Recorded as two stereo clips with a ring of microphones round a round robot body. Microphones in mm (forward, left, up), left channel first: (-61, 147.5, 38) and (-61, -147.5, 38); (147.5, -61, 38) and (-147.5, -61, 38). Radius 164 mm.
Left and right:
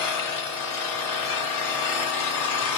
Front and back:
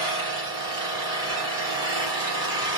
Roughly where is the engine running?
Left.